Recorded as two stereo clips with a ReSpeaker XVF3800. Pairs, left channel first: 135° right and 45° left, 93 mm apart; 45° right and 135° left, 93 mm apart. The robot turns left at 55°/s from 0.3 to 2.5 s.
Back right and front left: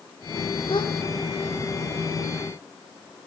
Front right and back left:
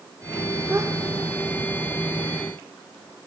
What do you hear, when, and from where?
0.7 s a gasp: 160° right, 2.5 m; by 0.9 s 175° right, 2.5 m